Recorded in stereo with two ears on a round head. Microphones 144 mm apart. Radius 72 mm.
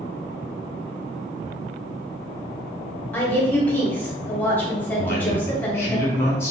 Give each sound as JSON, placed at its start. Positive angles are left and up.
{"t": 3.1, "sound": "a woman speaking", "side_deg": 10, "distance_m": 1.2}
{"t": 5.0, "sound": "a man speaking", "side_deg": 15, "distance_m": 1.5}